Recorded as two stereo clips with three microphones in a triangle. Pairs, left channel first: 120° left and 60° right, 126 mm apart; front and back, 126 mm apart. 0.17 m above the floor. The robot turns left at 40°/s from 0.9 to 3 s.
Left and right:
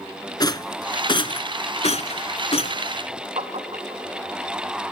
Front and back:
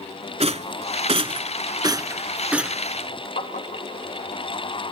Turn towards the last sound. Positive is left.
turn(degrees=-20)